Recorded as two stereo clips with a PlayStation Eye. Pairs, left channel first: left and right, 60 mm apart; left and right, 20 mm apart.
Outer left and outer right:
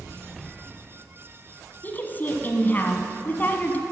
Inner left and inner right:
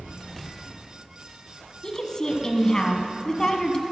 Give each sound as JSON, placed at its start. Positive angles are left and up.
{"t": 1.8, "sound": "a woman speaking", "side_deg": 30, "distance_m": 1.2}